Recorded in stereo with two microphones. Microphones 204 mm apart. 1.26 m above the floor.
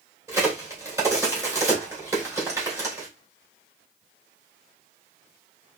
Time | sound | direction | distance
0.3 | a crack | 15° right (ahead or behind) | 2.5 m